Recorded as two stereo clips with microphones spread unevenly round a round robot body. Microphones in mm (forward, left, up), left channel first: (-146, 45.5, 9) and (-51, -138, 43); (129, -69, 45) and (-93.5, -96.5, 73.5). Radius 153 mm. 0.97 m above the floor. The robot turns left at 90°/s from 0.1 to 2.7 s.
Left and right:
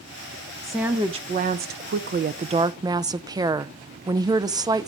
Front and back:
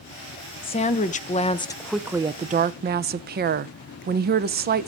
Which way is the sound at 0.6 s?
45° left.